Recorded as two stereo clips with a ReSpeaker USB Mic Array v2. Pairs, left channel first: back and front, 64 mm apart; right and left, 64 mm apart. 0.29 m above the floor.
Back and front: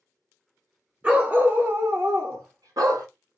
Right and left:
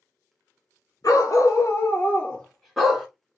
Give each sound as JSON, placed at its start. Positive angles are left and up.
{"t": 1.0, "sound": "a dog barking", "azimuth_deg": -70, "distance_m": 1.2}